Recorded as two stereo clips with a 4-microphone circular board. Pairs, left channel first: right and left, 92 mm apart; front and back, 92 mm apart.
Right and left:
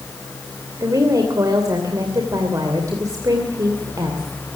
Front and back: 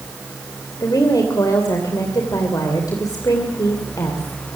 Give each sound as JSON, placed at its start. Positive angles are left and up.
{"t": 0.8, "sound": "a woman speaking", "azimuth_deg": 45, "distance_m": 2.5}